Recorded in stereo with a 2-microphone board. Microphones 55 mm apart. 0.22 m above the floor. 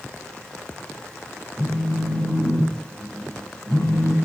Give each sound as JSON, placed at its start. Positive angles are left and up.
{"t": 1.6, "sound": "a phone buzzing", "side_deg": -40, "distance_m": 2.5}